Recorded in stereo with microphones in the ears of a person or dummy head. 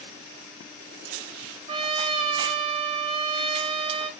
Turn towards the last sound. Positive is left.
turn(degrees=-35)  # may be behind; listen again after turning